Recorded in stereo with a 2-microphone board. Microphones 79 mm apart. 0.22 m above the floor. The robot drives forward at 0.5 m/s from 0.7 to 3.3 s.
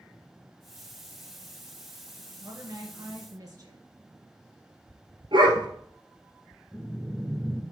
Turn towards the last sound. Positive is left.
turn(degrees=0)  # may be behind; listen again after turning